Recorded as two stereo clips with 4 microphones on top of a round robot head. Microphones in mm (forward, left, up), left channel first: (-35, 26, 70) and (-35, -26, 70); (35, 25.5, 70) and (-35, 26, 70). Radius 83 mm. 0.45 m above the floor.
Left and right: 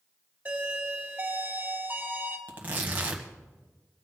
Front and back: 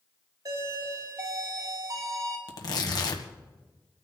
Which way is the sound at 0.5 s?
155° right.